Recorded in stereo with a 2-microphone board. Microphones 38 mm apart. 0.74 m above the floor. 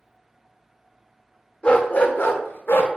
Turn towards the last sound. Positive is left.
turn(degrees=75)  # may be behind; listen again after turning